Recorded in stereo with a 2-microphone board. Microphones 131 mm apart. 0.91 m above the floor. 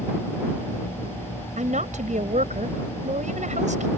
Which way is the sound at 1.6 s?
70° right (ahead or behind).